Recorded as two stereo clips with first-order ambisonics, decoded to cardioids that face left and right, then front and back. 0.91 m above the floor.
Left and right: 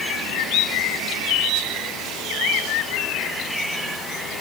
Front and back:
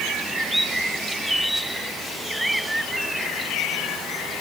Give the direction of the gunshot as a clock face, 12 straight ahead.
I don't hear a gunshot.